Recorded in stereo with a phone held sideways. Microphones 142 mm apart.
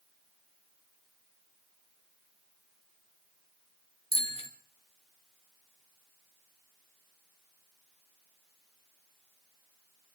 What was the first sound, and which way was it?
A bicycle bell, 45° left (ahead or behind).